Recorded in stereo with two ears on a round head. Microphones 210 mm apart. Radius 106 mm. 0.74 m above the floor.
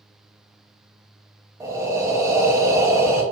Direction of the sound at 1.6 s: 15° right (ahead or behind).